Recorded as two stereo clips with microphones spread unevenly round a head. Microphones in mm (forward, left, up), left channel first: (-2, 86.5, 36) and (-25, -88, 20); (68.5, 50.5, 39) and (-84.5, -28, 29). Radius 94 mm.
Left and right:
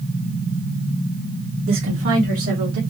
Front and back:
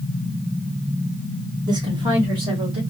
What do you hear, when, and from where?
1.7 s a woman speaking: 85° right, 1.2 m; by 2.8 s 90° right, 3 m